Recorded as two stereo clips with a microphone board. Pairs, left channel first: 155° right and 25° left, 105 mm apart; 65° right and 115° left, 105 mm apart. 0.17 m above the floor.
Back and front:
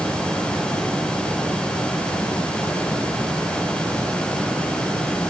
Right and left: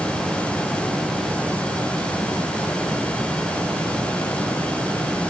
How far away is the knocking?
I don't hear knocking.